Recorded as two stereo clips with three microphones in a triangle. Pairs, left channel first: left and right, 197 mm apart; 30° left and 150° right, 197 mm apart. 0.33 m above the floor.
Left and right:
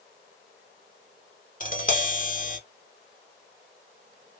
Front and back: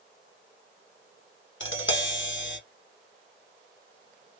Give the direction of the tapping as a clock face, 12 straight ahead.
10 o'clock.